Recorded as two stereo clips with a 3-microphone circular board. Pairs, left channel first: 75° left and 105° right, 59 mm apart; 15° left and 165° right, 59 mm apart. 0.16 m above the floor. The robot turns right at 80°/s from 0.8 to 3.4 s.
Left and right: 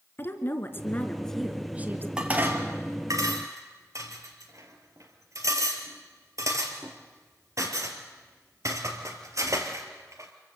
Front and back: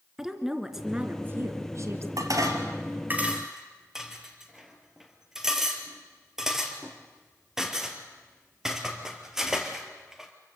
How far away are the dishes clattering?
About 2.5 m.